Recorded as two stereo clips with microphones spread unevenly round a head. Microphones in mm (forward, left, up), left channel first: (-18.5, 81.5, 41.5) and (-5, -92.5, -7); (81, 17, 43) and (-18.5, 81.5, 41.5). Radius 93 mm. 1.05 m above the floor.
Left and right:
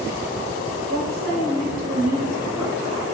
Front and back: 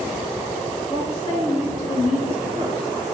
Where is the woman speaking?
75° right, 1.1 m; by 3.1 s 95° right, 2 m.